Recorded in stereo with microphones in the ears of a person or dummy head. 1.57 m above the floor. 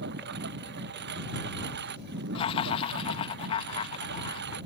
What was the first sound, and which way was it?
A lawn mower, 65° right (ahead or behind).